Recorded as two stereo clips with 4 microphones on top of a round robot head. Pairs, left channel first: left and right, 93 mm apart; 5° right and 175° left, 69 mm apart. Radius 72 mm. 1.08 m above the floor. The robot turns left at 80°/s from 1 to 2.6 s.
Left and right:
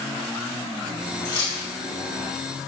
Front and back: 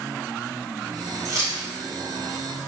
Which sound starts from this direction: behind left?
Keys jangling, at 1.2 s.